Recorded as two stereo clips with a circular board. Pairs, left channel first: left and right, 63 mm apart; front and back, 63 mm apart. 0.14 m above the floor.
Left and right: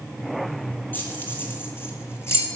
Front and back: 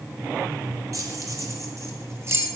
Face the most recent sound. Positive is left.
turn(degrees=135)